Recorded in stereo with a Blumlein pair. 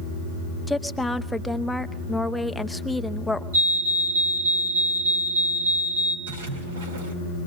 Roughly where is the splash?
Ahead right.